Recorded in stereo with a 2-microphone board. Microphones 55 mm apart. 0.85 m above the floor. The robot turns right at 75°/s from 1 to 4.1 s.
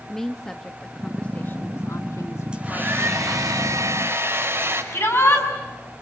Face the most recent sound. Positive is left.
turn(degrees=45)  # may be behind; listen again after turning